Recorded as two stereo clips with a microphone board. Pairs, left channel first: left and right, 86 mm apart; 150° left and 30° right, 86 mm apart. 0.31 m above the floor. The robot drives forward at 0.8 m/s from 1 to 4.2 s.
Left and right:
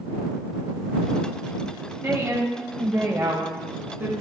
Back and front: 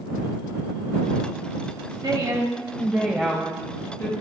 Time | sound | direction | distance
2.0 | a woman speaking | 40° right | 1.2 m